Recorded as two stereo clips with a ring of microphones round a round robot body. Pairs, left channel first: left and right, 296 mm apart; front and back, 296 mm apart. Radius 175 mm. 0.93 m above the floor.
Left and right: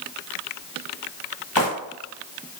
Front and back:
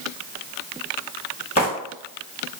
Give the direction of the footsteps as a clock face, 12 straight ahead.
10 o'clock.